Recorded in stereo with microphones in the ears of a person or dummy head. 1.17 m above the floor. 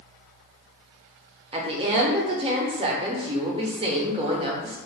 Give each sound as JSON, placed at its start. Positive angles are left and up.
{"t": 1.5, "sound": "a woman speaking", "side_deg": -25, "distance_m": 0.6}